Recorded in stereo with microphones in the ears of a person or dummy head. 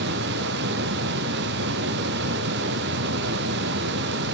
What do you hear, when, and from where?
0.0 s a fan: 60° right (ahead or behind), 0.8 m